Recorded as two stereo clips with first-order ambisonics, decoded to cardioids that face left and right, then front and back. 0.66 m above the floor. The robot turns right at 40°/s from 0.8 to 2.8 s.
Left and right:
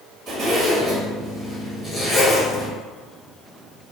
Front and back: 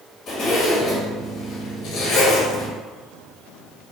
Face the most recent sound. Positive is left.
turn(degrees=25)